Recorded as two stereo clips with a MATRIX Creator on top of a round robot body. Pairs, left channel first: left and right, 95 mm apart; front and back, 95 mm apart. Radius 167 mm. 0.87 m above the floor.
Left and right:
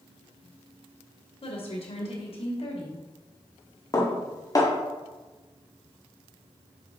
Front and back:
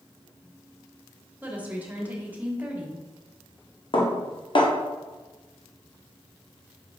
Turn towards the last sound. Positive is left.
turn(degrees=35)